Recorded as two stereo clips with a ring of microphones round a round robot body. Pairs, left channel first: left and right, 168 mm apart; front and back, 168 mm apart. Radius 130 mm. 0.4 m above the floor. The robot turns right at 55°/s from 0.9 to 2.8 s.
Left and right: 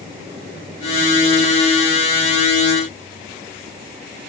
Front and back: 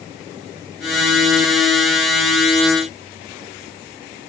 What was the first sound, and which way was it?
Only background noise.